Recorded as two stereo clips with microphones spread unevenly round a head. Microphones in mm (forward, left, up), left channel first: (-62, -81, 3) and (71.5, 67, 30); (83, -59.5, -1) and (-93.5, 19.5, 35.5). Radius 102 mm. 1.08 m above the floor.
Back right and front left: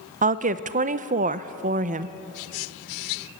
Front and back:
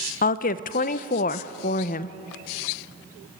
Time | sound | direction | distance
0.2 | a woman speaking | 5° right | 0.7 m